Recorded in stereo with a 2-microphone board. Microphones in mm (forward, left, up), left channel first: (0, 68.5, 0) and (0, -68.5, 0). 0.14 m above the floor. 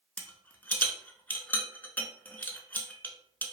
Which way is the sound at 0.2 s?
15° left (ahead or behind).